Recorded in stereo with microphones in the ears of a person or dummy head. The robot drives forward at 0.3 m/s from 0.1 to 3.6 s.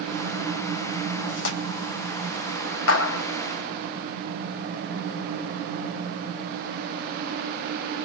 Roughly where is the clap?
Left.